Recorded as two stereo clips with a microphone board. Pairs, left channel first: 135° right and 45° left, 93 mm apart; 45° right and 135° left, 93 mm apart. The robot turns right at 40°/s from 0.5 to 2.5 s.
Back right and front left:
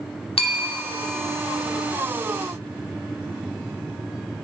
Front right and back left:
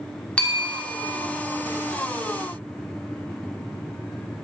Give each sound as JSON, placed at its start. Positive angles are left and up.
{"t": 0.4, "sound": "a bell", "azimuth_deg": -120, "distance_m": 1.2}